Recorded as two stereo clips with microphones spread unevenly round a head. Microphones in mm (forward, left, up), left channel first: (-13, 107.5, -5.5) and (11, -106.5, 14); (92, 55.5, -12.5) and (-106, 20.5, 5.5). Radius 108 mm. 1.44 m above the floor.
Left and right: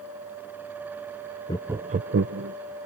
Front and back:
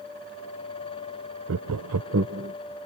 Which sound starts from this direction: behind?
Laughter, at 1.5 s.